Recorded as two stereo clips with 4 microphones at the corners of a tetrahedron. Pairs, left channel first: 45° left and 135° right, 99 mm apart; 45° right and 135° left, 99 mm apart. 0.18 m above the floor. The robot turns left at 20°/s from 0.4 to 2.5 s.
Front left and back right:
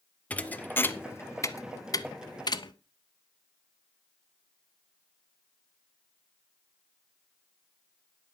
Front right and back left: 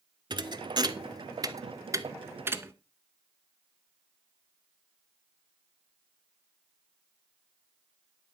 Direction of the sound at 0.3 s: 120° left.